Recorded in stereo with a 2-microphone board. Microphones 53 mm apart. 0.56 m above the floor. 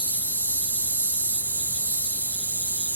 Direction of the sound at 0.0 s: 30° right (ahead or behind).